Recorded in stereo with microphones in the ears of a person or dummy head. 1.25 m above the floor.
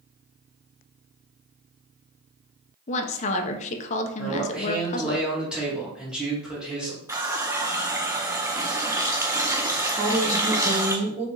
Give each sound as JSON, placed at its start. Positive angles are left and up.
{"t": 2.9, "sound": "a woman speaking", "side_deg": 35, "distance_m": 0.7}
{"t": 4.2, "sound": "a man speaking", "side_deg": -5, "distance_m": 2.0}
{"t": 7.1, "sound": "a running tap", "side_deg": -10, "distance_m": 0.5}
{"t": 10.0, "sound": "a woman speaking", "side_deg": -35, "distance_m": 1.3}